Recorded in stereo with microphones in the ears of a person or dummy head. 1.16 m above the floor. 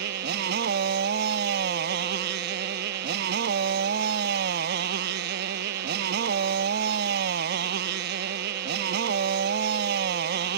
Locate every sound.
0.0 s a motorcycle: 60° right (ahead or behind)